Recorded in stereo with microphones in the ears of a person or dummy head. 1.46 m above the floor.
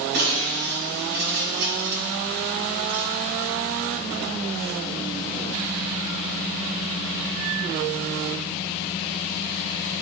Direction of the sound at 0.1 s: 60° right (ahead or behind).